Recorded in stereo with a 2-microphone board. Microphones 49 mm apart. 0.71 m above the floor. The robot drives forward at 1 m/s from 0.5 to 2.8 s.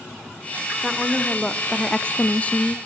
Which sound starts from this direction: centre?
A woman speaking, at 0.8 s.